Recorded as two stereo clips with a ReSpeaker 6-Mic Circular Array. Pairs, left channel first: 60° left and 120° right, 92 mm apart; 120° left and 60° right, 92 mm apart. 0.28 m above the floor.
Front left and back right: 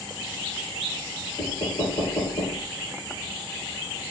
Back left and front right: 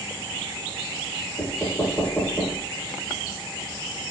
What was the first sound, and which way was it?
Knocking, 60° left.